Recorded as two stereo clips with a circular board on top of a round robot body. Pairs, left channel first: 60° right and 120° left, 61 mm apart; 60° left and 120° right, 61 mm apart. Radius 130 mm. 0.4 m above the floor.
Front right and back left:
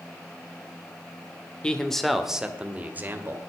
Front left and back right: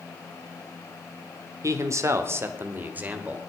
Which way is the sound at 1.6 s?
130° right.